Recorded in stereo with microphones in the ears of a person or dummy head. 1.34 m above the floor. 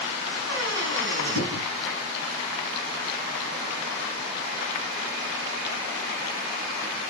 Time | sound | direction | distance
0.5 | a squeak | 80° right | 4 m